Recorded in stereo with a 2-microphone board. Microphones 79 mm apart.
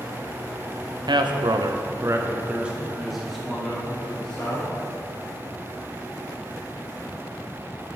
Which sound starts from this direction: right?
A man speaking, at 1.1 s.